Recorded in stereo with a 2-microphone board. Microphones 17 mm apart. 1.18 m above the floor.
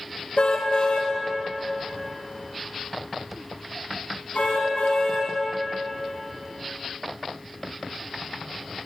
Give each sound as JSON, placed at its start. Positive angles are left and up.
{"t": 0.4, "sound": "a car horn", "side_deg": 60, "distance_m": 3.0}